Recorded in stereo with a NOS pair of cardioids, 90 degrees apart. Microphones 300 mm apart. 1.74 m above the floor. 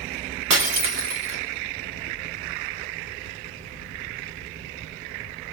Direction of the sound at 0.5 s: 55° right.